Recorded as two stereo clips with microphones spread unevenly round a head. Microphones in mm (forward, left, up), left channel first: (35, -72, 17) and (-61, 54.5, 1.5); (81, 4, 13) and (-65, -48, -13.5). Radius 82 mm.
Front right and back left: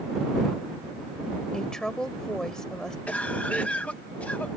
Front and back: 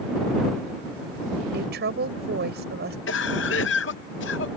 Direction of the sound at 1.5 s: 140° right.